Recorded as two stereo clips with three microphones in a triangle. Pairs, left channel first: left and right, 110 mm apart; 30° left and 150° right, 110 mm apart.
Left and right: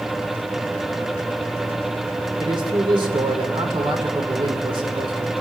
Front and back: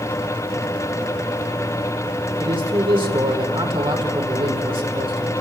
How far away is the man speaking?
About 2 m.